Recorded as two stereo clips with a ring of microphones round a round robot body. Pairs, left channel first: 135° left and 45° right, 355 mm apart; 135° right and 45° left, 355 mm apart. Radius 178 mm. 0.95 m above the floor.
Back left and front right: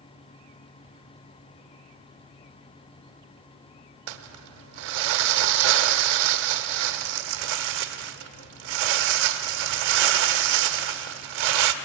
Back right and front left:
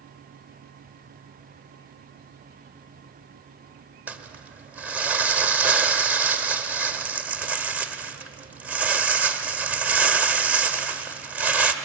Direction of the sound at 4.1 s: 40° right.